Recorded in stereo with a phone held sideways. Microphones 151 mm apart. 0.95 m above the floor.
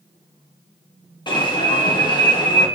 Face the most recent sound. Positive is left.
turn(degrees=30)  # may be behind; listen again after turning